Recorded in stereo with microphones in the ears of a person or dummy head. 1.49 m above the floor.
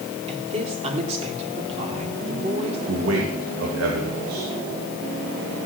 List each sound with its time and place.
0.3 s a woman speaking: 35° right (ahead or behind), 3.5 m
2.9 s a man speaking: 75° right (ahead or behind), 2.5 m